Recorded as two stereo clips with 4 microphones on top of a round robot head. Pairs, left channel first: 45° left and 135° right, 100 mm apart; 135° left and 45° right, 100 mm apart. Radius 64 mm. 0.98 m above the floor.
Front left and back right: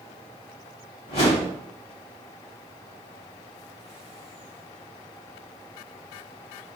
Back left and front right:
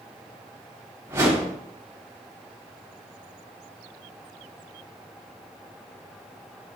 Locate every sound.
1.1 s a whoosh: 20° left, 3.5 m